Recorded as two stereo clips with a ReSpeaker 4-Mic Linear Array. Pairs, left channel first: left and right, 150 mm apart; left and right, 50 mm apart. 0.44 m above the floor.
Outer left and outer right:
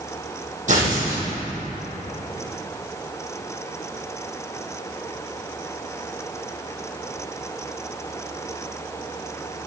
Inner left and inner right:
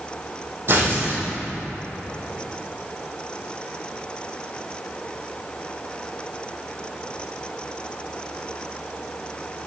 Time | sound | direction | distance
0.7 | tearing paper | 55° right (ahead or behind) | 3.5 m